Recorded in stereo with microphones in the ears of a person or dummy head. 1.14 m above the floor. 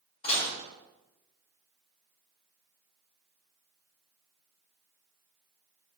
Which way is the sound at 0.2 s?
35° left (ahead or behind).